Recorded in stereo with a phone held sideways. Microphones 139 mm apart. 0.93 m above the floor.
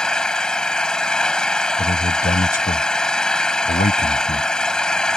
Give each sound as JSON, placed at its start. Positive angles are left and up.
{"t": 0.0, "sound": "an engine running", "side_deg": 5}
{"t": 1.8, "sound": "a man speaking", "side_deg": 85}